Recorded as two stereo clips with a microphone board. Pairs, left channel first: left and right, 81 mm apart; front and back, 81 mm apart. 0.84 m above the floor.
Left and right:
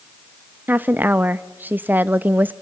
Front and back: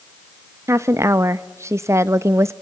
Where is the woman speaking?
145° right, 0.6 m.